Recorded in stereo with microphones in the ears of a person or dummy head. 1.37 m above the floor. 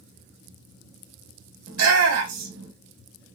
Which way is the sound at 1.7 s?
75° right (ahead or behind).